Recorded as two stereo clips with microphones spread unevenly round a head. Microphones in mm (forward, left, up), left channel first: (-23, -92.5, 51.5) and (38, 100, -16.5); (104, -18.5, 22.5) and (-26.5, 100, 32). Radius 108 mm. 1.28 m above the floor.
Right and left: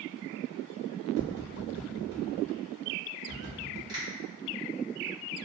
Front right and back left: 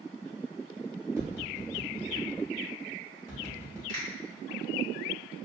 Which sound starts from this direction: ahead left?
Tapping, at 1.2 s.